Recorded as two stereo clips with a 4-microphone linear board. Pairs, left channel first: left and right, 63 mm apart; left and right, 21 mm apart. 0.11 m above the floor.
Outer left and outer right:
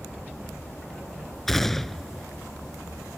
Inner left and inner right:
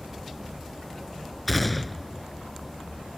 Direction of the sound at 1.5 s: 5° left (ahead or behind).